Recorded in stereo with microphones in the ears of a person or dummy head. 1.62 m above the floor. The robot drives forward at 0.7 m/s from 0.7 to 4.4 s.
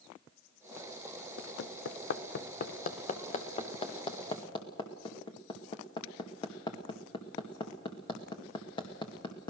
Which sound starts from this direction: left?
Hammering, at 1.4 s.